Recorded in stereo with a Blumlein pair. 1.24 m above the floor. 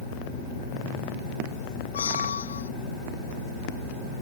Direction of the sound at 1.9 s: 70° left.